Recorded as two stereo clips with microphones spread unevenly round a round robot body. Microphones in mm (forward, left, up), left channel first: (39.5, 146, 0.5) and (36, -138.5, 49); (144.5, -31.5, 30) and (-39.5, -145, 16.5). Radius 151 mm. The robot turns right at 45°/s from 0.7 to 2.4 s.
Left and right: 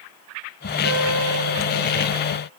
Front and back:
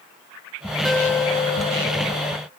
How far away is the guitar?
About 3.5 m.